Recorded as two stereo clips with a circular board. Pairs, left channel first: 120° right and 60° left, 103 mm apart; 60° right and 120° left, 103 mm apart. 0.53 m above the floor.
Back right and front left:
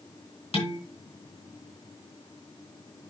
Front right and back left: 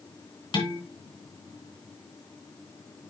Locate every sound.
0.5 s dishes clattering: 100° right, 3 m